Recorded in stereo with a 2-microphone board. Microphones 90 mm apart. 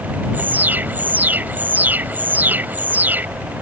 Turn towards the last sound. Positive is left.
turn(degrees=-20)  # may be behind; listen again after turning